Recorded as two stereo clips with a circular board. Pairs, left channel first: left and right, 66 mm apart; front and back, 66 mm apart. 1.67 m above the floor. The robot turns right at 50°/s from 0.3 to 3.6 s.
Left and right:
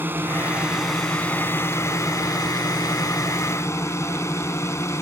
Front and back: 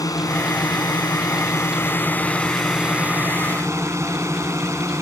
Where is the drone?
30° right; by 5.0 s 135° left.